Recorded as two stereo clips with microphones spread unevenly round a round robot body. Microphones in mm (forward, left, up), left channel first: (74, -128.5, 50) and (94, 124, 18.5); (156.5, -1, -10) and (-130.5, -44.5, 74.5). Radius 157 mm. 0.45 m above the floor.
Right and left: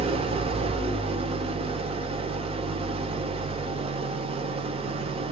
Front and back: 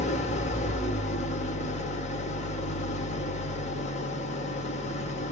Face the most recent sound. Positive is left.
turn(degrees=35)